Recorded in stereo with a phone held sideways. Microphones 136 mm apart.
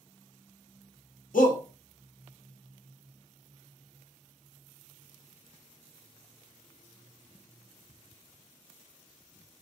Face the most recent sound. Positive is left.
turn(degrees=80)